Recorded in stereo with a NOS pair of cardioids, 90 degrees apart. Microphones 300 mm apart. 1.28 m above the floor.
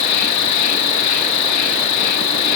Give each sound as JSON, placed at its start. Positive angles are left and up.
{"t": 0.0, "sound": "an insect", "azimuth_deg": 70}